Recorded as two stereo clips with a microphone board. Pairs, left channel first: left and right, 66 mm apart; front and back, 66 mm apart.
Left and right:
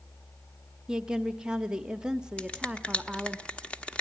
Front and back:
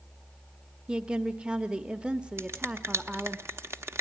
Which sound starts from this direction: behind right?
A woman speaking, at 0.9 s.